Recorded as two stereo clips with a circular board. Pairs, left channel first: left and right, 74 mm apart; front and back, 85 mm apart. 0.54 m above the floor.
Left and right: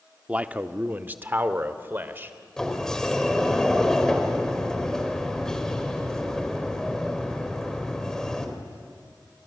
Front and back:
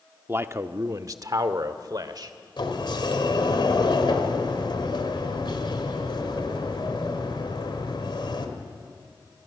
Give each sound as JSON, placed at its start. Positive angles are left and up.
{"t": 0.3, "sound": "a man speaking", "azimuth_deg": -145, "distance_m": 0.7}
{"t": 2.6, "sound": "a sliding door", "azimuth_deg": 10, "distance_m": 2.0}